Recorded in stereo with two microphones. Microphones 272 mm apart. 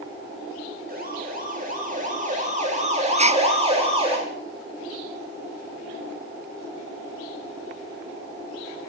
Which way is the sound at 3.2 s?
25° right (ahead or behind).